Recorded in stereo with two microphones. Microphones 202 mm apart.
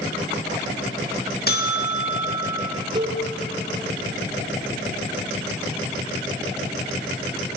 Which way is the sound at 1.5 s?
50° left (ahead or behind).